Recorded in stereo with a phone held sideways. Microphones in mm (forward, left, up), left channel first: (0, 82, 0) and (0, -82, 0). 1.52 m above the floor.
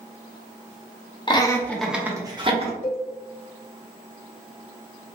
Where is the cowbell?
50° left (ahead or behind), 0.9 m.